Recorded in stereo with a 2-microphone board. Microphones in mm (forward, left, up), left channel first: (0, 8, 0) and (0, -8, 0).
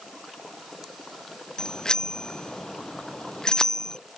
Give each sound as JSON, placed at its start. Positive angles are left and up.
{"t": 1.6, "sound": "a bicycle bell", "side_deg": 45}